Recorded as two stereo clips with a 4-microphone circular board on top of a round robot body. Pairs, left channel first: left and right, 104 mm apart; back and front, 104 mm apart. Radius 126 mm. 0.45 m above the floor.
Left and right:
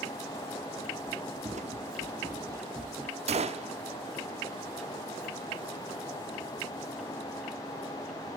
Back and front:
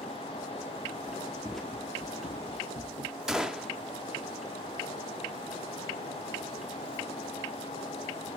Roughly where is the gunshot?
Right.